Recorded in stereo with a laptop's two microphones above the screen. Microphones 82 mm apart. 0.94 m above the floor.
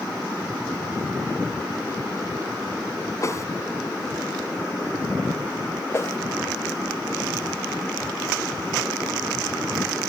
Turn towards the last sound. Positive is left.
turn(degrees=35)  # may be behind; listen again after turning